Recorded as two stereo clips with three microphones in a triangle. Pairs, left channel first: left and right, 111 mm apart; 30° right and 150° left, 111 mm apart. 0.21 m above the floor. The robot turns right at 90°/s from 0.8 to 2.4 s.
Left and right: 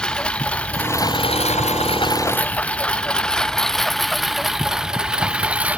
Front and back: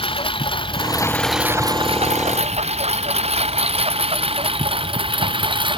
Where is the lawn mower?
10° left; by 5.8 s 170° right.